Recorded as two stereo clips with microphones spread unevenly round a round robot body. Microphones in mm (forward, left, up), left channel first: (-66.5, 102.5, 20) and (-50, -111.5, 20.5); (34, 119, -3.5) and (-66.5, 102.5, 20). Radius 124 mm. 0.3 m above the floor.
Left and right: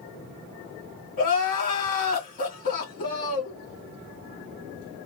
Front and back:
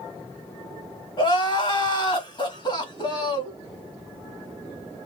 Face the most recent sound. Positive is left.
turn(degrees=40)